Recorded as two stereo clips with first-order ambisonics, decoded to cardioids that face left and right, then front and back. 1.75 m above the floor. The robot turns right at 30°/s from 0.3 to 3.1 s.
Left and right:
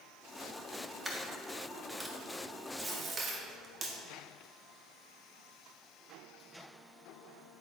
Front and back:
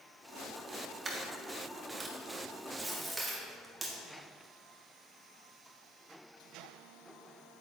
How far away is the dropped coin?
About 1.2 m.